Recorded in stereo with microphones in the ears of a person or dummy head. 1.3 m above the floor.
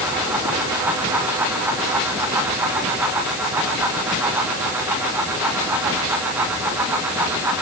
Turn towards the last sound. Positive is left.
No sound to turn to.